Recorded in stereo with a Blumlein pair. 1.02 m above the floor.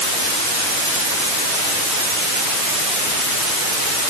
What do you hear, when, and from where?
Only background noise.